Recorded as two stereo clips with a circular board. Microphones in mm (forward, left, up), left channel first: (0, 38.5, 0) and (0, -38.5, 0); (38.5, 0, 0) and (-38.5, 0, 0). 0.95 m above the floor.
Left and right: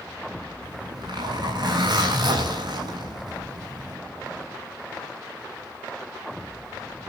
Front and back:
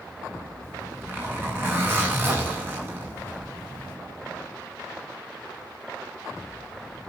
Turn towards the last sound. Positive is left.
turn(degrees=-115)